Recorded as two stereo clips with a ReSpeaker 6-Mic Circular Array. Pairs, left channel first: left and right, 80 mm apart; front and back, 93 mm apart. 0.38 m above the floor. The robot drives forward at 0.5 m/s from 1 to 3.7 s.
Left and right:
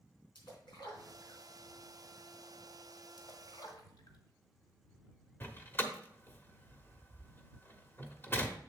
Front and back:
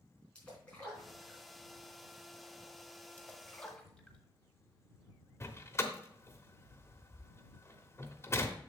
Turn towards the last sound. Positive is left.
turn(degrees=40)